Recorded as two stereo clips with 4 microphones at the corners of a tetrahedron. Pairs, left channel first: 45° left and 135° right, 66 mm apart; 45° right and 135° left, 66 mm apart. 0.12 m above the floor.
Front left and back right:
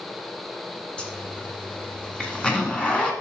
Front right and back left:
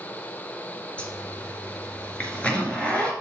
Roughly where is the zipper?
Ahead.